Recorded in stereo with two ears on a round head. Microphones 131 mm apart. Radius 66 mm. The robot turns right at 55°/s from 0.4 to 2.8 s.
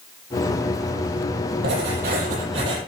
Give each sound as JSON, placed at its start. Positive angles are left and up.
{"t": 1.6, "sound": "writing", "azimuth_deg": -90, "distance_m": 9.0}